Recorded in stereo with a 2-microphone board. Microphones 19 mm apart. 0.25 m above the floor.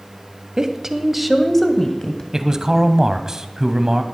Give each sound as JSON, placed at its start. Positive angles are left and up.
{"t": 0.6, "sound": "a woman speaking", "side_deg": -35, "distance_m": 1.2}
{"t": 2.3, "sound": "a man speaking", "side_deg": -30, "distance_m": 1.2}